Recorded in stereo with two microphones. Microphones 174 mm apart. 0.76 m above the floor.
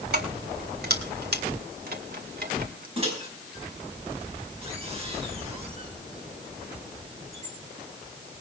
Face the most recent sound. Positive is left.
turn(degrees=-35)  # may be behind; listen again after turning